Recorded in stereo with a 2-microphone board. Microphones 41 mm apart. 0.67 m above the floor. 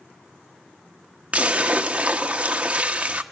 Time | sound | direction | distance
1.3 | a splash | 30° right (ahead or behind) | 1.0 m